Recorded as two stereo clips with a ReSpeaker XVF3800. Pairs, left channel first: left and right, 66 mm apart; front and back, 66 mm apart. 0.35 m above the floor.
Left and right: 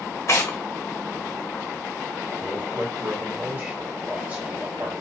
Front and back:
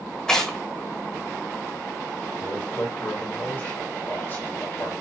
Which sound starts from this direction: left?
Tearing paper, at 0.3 s.